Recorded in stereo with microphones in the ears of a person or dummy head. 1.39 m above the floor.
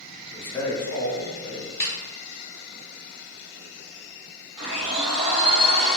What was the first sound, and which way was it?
A man speaking, 5° left (ahead or behind).